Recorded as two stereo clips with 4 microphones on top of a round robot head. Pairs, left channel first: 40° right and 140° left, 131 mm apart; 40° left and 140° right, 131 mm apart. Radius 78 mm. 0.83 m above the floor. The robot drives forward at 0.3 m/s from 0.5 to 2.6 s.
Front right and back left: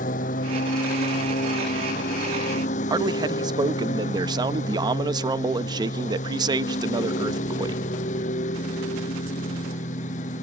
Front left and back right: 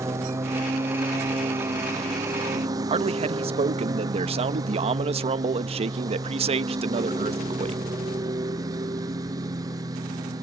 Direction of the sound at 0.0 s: 70° right.